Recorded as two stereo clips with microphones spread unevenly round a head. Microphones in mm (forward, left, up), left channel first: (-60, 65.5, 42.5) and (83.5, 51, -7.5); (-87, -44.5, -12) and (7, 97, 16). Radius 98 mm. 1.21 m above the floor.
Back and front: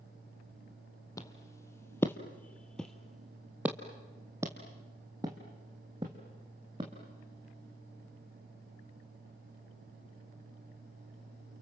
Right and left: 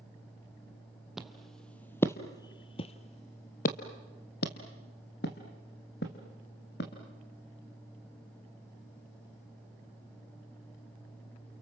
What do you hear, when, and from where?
1.2 s footsteps: 135° left, 1.8 m; by 6.9 s 80° right, 3.5 m